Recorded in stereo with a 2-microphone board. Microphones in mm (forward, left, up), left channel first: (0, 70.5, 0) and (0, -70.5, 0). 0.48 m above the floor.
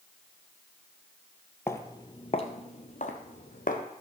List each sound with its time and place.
1.7 s footsteps: 20° left (ahead or behind), 0.7 m; by 3.8 s 70° left (ahead or behind), 1.2 m